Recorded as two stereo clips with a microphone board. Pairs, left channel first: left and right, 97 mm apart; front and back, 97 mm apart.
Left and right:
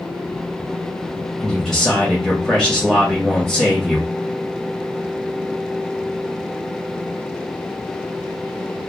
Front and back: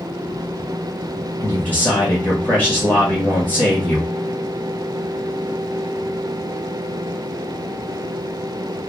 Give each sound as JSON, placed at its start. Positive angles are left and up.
{"t": 1.4, "sound": "a man speaking", "azimuth_deg": 10, "distance_m": 1.5}